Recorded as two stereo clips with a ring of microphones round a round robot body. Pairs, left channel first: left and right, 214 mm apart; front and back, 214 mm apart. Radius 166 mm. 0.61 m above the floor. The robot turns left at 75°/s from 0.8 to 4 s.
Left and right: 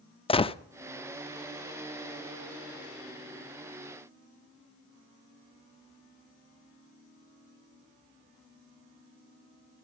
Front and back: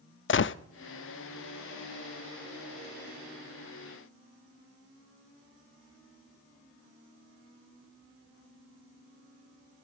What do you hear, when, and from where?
0.3 s a gunshot: 25° left, 0.8 m